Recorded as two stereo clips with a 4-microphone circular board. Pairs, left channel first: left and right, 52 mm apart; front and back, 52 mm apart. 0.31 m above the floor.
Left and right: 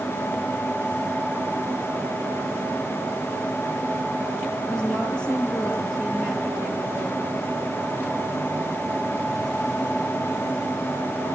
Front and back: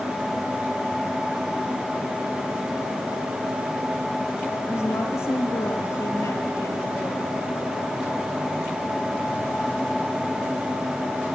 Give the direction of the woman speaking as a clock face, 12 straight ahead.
12 o'clock.